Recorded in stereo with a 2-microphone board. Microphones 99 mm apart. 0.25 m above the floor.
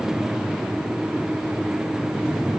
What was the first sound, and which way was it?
Only background noise.